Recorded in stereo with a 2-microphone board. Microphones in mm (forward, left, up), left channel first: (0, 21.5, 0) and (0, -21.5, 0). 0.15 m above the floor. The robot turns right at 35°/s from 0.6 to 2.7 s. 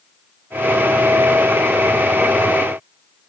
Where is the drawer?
No drawer in this recording.